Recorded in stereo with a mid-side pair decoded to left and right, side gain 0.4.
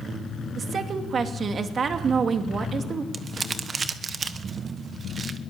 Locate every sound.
0.6 s a woman speaking: 55° right, 2.5 m
3.1 s crumpling: 45° right, 1.4 m